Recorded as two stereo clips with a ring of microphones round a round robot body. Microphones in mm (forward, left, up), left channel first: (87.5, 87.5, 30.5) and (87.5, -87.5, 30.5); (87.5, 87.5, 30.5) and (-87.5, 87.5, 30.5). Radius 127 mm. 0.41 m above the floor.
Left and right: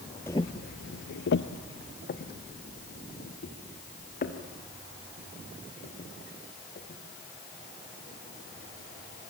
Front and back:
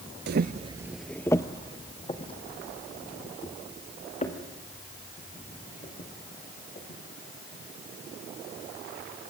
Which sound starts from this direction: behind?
Footsteps, at 0.3 s.